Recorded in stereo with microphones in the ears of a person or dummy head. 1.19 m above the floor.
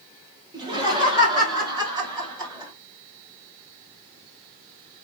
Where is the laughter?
25° right (ahead or behind), 0.9 m; by 2.7 s 20° right (ahead or behind), 2.5 m.